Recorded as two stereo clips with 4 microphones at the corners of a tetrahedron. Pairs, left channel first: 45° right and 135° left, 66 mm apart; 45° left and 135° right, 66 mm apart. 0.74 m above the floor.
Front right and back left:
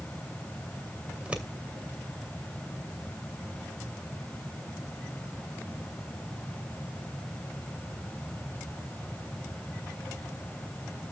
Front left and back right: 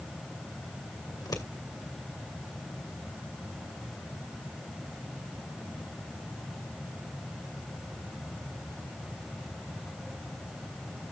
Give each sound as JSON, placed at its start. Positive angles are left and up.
{"t": 1.1, "sound": "scissors", "azimuth_deg": 60, "distance_m": 2.0}